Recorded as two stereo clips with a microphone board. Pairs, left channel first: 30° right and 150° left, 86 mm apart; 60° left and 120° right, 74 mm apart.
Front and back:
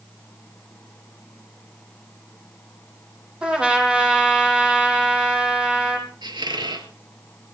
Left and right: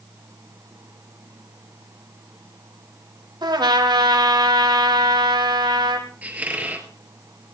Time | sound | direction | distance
3.4 | a trumpet | 130° right | 3.5 m
6.2 | a squeak | 175° left | 2.0 m